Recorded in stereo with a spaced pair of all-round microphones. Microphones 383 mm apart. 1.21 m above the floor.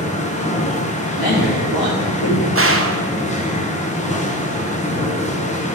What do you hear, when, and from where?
0.0 s a machine running: 20° left (ahead or behind), 0.9 m
1.2 s a man speaking: 85° left, 2 m
2.5 s a gunshot: 35° right (ahead or behind), 0.6 m